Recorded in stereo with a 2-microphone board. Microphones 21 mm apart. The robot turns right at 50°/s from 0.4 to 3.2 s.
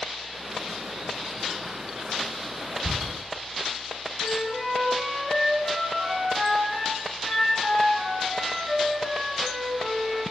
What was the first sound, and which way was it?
Ticking, 10° right (ahead or behind).